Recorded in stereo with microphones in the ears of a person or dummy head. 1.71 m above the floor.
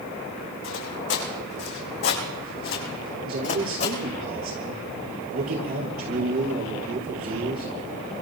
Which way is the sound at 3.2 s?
45° right (ahead or behind).